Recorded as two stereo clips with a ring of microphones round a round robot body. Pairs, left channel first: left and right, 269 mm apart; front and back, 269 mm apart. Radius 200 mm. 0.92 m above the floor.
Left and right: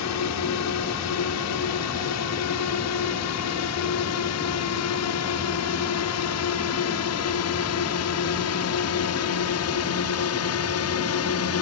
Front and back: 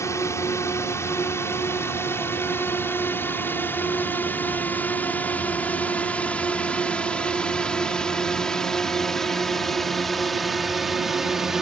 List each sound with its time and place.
0.0 s a drone: 80° left; by 11.6 s 90° left